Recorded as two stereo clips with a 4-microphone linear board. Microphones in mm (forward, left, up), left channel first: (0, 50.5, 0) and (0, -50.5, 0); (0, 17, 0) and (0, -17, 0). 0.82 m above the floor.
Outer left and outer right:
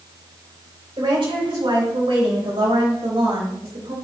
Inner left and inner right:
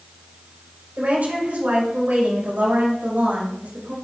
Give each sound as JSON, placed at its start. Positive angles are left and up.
{"t": 1.0, "sound": "a woman speaking", "side_deg": -60, "distance_m": 4.5}